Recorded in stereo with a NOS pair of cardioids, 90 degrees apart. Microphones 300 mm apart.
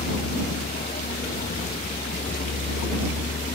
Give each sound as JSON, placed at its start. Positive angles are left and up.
{"t": 0.0, "sound": "a vehicle", "azimuth_deg": 30}